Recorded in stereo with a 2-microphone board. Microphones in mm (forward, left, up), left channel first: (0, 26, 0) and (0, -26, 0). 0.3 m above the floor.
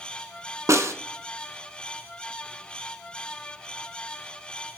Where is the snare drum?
70° right (ahead or behind), 0.7 m.